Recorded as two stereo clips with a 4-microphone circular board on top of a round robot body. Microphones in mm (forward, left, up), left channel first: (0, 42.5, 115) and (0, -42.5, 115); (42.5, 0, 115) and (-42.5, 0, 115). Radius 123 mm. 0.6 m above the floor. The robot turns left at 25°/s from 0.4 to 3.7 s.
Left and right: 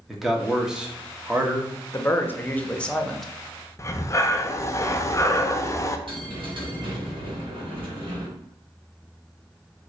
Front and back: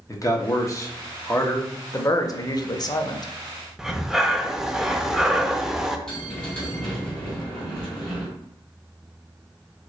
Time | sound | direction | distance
0.1 | a man speaking | 5° right | 1.1 m
1.9 | a man speaking | 40° left | 0.7 m
3.8 | breathing | 100° left | 0.6 m
6.1 | a bell | 80° right | 2.0 m